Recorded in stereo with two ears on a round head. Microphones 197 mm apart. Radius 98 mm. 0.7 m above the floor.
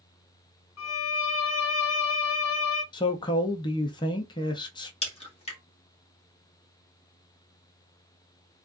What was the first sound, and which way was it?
A violin, 70° left (ahead or behind).